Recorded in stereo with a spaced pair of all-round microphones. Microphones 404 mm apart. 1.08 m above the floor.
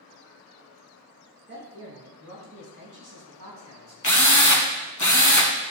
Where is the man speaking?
25° right (ahead or behind), 2 m; by 3.9 s 60° right (ahead or behind), 3 m.